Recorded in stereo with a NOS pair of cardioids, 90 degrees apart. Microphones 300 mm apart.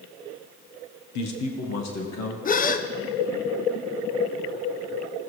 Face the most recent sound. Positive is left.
turn(degrees=30)